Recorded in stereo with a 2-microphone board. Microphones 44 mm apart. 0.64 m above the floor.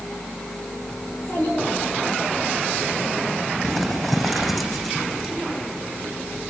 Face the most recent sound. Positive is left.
turn(degrees=0)  # may be behind; listen again after turning